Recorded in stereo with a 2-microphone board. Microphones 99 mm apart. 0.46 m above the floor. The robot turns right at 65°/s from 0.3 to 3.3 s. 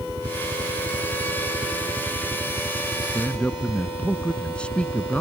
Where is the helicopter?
110° right; by 5.2 s 85° left.